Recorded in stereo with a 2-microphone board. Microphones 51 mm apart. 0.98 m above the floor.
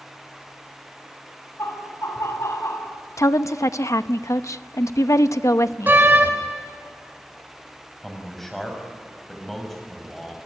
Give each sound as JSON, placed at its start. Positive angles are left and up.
{"t": 1.6, "sound": "laughter", "side_deg": 70, "distance_m": 6.5}
{"t": 3.2, "sound": "a woman speaking", "side_deg": 75, "distance_m": 0.8}
{"t": 5.9, "sound": "a door slam", "side_deg": -40, "distance_m": 2.5}
{"t": 8.0, "sound": "a man speaking", "side_deg": 0, "distance_m": 6.0}